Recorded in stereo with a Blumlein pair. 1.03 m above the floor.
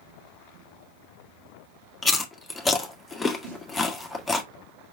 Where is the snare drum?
50° right, 1.5 m.